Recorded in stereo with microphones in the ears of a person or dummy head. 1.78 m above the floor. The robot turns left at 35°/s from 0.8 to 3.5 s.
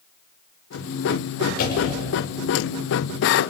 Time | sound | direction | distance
1.6 | a door slam | 55° left (ahead or behind) | 5.5 m